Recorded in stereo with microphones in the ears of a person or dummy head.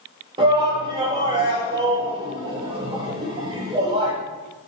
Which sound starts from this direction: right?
A shout, at 0.4 s.